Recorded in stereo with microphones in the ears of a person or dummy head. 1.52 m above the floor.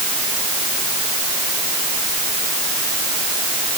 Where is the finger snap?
I don't hear a finger snap.